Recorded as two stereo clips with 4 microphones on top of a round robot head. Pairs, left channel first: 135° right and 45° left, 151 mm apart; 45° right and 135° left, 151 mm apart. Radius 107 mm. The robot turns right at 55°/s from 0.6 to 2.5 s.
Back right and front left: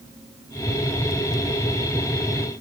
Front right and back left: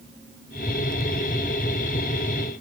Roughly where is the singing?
I don't hear singing.